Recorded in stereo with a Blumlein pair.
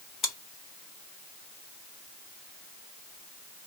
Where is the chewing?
25° left, 1.3 m.